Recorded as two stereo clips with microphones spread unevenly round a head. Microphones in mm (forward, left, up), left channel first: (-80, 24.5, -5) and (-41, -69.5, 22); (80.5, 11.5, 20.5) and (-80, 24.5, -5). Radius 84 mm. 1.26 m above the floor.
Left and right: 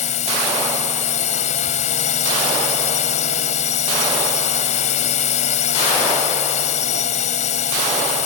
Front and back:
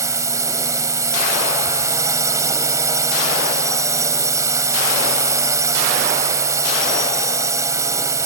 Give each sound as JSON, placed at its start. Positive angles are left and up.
{"t": 0.0, "sound": "a drone", "azimuth_deg": 105}